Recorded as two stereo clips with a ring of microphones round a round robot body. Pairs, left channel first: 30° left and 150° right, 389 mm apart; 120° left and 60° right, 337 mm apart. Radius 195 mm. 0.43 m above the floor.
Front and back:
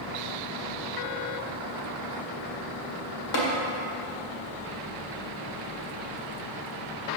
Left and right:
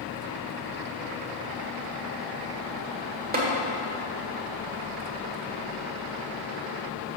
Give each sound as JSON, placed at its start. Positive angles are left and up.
{"t": 3.3, "sound": "tapping", "azimuth_deg": -5, "distance_m": 1.7}